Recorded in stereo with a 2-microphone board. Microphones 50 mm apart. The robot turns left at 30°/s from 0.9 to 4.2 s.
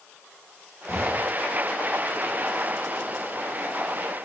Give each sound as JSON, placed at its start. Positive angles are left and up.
{"t": 0.9, "sound": "an explosion", "side_deg": -75, "distance_m": 2.5}